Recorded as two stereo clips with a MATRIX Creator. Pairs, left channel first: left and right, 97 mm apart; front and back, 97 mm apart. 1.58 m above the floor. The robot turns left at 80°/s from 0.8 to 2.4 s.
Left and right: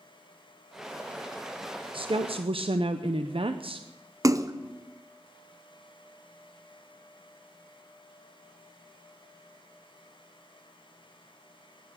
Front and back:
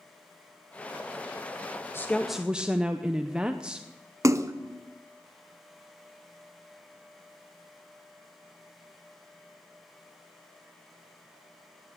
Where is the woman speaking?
65° right, 0.6 m; by 3.9 s 100° right, 0.6 m.